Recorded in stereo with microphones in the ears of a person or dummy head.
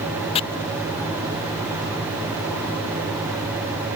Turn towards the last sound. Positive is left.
turn(degrees=30)  # may be behind; listen again after turning